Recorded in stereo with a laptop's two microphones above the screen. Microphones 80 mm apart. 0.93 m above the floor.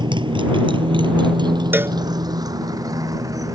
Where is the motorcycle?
70° right (ahead or behind); by 3.6 s 40° right (ahead or behind).